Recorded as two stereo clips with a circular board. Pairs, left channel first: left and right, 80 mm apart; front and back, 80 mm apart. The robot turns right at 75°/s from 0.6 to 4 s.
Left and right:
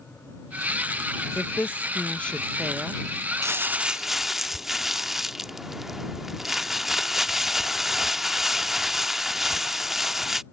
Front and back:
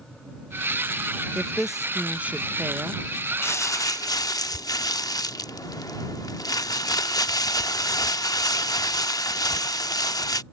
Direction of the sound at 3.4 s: 50° right.